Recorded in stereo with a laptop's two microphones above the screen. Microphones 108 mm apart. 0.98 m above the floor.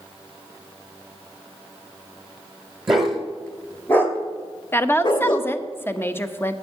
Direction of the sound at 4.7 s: 20° left (ahead or behind).